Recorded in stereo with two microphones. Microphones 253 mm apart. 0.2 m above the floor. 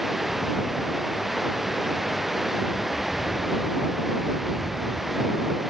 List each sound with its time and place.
0.0 s running water: centre (ahead or behind)